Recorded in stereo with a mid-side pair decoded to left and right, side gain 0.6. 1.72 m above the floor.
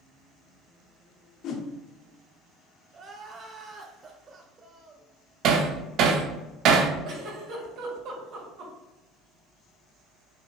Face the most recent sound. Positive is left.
turn(degrees=-65)